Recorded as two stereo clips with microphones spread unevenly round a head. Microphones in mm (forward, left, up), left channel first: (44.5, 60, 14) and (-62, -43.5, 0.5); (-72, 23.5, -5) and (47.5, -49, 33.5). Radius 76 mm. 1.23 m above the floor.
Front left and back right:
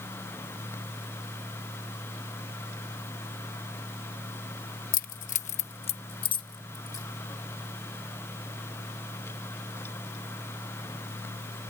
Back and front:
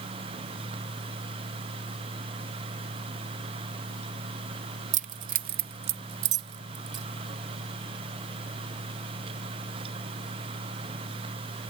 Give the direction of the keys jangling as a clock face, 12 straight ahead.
12 o'clock.